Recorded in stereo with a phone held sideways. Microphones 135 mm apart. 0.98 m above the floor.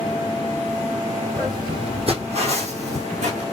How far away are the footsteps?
About 1.8 m.